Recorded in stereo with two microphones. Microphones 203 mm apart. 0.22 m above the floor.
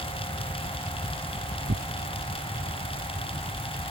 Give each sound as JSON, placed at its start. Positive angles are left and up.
{"t": 1.7, "sound": "tearing paper", "side_deg": -55}